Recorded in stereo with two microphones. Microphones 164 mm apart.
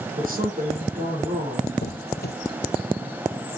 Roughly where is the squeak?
Left.